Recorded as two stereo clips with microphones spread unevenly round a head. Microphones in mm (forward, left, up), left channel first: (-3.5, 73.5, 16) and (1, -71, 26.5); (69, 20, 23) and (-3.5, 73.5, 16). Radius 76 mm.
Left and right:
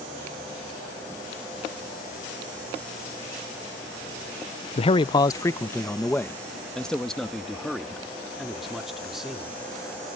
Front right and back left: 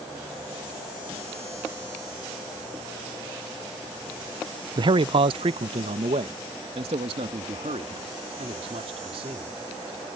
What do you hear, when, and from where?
4.8 s a man speaking: 125° left; by 9.6 s 175° right